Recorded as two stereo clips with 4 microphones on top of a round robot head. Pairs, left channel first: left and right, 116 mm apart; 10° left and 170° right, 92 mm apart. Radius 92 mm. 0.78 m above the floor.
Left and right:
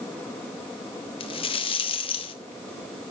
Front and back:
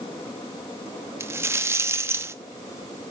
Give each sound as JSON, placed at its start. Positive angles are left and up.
{"t": 1.2, "sound": "a rattle", "azimuth_deg": 130, "distance_m": 1.0}